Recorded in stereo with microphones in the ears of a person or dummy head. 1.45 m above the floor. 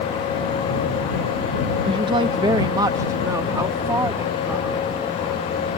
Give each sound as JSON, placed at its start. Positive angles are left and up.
{"t": 1.9, "sound": "a woman speaking", "side_deg": -30}